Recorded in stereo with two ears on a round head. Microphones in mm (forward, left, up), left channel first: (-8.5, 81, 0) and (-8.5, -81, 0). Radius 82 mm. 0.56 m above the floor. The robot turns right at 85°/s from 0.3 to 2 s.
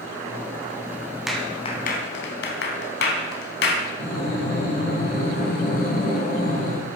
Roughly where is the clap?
Centre.